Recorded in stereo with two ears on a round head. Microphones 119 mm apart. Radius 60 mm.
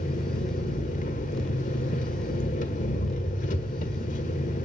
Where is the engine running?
65° left (ahead or behind), 1.7 m.